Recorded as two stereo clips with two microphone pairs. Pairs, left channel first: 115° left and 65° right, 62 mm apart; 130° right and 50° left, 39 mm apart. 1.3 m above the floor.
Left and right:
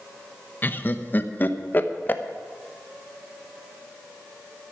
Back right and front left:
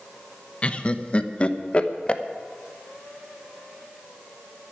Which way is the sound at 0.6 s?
175° left.